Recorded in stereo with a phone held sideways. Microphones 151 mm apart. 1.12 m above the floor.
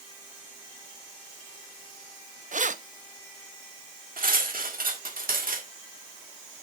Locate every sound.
2.5 s keys jangling: 55° right (ahead or behind), 0.7 m
4.2 s cutlery clinking: 70° right (ahead or behind), 1.8 m